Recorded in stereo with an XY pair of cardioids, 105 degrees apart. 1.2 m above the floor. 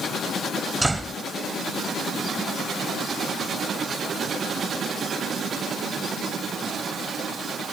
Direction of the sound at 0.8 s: 15° right.